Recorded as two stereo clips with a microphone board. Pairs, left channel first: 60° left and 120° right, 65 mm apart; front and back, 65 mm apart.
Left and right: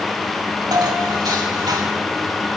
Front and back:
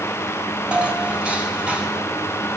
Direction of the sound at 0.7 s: 105° right.